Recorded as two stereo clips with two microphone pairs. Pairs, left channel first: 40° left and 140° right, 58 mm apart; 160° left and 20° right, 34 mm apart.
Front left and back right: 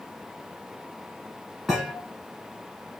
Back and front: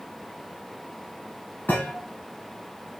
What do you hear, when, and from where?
1.7 s a thud: 140° left, 2.5 m